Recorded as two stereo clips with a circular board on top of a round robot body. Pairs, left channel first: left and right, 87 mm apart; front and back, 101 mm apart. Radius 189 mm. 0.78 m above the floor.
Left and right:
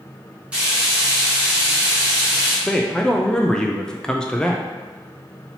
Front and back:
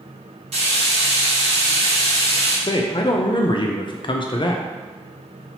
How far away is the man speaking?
About 0.6 m.